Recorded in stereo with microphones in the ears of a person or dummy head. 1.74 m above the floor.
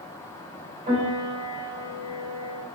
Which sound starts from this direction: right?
A piano, at 0.9 s.